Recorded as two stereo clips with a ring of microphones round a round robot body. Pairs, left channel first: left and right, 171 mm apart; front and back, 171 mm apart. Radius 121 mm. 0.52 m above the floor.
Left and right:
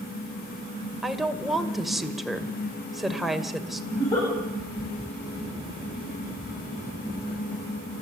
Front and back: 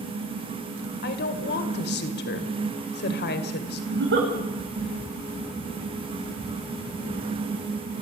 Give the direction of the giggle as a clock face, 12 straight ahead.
6 o'clock.